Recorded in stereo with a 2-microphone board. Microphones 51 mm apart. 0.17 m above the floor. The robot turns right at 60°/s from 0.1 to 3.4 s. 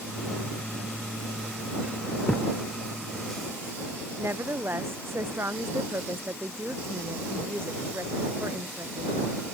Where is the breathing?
I don't hear breathing.